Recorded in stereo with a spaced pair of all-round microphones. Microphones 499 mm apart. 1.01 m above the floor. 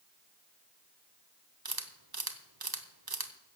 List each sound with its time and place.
1.6 s a camera shutter: 45° right (ahead or behind), 1.1 m